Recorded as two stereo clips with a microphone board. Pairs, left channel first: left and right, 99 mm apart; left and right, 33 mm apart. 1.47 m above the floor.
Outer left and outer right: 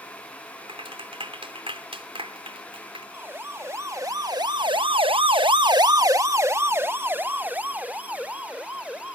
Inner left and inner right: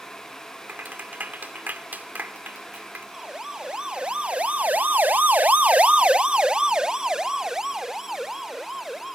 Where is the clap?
70° right (ahead or behind).